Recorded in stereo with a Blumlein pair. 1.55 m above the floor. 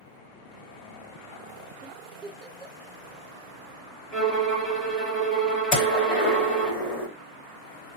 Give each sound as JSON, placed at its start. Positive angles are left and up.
{"t": 1.8, "sound": "a giggle", "azimuth_deg": -25, "distance_m": 1.7}
{"t": 4.1, "sound": "a violin", "azimuth_deg": 20, "distance_m": 1.5}
{"t": 5.7, "sound": "a gunshot", "azimuth_deg": 30, "distance_m": 2.0}